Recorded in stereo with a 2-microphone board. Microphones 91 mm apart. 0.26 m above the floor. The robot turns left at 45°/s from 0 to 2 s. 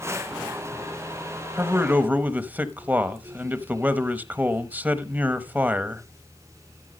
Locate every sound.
1.6 s a man speaking: 25° right (ahead or behind), 1.0 m; by 6.0 s 20° right (ahead or behind), 1.0 m